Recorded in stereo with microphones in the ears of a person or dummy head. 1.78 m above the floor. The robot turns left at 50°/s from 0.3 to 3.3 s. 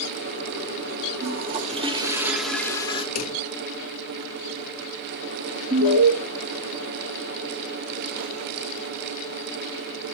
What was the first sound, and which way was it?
A toilet flushing, 115° right.